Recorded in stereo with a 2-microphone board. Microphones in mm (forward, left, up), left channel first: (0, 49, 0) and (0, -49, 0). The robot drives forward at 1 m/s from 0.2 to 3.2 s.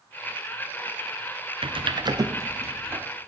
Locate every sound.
1.6 s typing on a keyboard: 70° right (ahead or behind), 0.7 m; by 3.0 s 20° right (ahead or behind), 1.7 m